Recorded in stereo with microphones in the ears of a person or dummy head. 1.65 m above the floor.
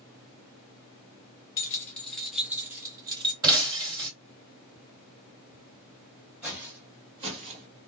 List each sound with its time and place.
1.6 s keys jangling: 15° left (ahead or behind), 1.2 m; by 3.3 s 25° right (ahead or behind), 1.4 m
3.4 s breaking glass: 20° right (ahead or behind), 2.5 m
6.4 s footsteps: 5° right (ahead or behind), 2 m; by 7.7 s 40° right (ahead or behind), 2.5 m